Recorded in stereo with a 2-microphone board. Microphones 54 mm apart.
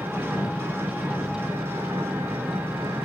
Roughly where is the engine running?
Right.